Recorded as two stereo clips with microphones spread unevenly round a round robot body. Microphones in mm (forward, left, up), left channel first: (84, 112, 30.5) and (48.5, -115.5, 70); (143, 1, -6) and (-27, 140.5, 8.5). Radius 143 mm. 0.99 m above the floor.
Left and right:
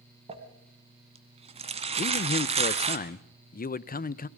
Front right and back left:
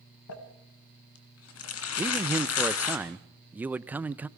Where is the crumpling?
40° right, 2.0 m.